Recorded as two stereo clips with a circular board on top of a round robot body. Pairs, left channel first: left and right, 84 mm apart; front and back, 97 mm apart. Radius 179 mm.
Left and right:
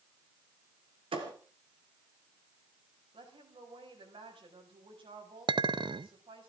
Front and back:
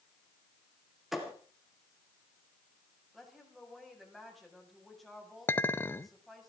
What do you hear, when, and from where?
1.1 s a thud: 90° right, 3 m
3.1 s a woman speaking: 90° right, 6 m
5.5 s a clink: 70° right, 0.9 m